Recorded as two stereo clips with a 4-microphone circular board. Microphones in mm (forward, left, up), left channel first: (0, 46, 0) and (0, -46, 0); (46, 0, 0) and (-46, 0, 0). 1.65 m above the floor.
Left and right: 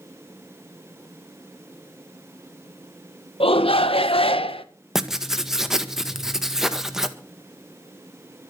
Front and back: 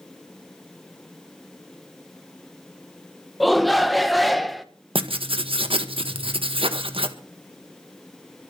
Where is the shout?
90° left, 1.6 m.